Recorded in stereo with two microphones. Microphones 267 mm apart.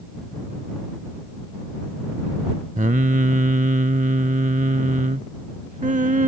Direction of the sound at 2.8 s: 30° right (ahead or behind).